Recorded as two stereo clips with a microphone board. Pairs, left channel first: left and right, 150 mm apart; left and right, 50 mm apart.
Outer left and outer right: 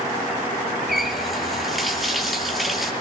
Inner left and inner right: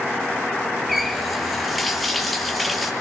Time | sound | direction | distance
0.9 | a running tap | centre (ahead or behind) | 3.5 m